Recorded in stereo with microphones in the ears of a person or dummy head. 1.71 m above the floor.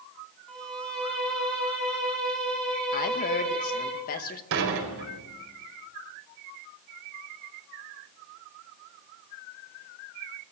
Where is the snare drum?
I don't hear a snare drum.